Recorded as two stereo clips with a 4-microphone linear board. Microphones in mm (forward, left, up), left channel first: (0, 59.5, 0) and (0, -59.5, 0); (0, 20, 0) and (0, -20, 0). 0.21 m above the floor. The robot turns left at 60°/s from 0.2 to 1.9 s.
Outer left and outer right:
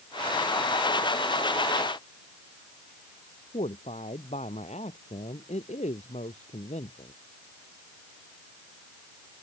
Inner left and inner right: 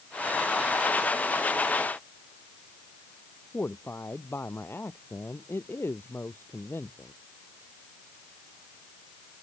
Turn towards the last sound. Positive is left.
turn(degrees=75)  # may be behind; listen again after turning